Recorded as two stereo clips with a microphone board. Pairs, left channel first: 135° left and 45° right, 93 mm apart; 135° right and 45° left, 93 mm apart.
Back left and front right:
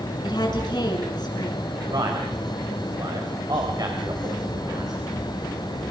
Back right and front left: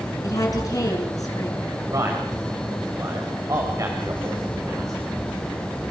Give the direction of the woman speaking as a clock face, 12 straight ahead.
6 o'clock.